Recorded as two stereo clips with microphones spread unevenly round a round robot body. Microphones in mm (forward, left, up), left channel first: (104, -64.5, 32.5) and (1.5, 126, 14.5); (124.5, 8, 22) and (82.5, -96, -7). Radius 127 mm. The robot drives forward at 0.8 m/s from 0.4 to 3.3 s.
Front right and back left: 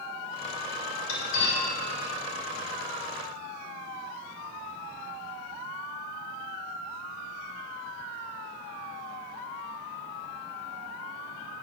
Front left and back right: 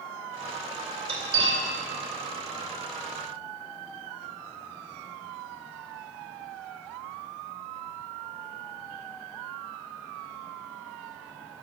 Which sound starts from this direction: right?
Cutlery clinking, at 1.1 s.